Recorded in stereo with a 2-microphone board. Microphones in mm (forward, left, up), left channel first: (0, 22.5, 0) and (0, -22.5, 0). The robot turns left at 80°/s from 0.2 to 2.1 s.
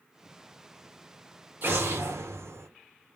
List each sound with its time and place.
1.6 s an explosion: 50° right, 0.9 m; by 2.7 s 90° right, 0.9 m